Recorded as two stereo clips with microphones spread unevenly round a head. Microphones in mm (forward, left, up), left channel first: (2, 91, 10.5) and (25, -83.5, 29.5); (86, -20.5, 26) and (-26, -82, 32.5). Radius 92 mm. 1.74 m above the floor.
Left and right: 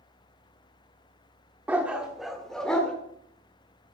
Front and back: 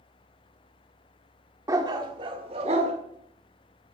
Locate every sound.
1.7 s a dog barking: 140° right, 1.4 m; by 2.9 s 175° right, 1.9 m